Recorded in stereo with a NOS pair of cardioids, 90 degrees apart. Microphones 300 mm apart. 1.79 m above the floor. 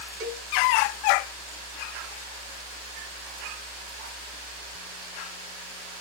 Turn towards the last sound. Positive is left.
turn(degrees=-40)